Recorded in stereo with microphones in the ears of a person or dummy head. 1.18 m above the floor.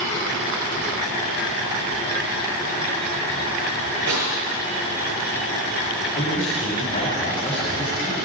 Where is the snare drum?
80° right, 5.5 m.